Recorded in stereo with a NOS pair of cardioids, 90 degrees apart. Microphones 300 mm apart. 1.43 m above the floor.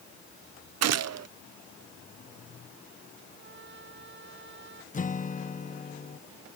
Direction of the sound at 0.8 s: 60° right.